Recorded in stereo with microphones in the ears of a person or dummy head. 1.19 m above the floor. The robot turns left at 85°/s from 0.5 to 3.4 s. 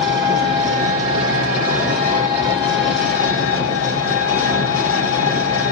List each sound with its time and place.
0.0 s an engine running: 60° right, 3 m; by 5.7 s 55° left, 3 m